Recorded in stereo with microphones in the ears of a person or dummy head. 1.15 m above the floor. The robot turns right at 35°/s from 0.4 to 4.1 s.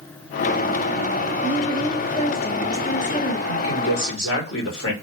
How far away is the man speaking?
About 1.2 m.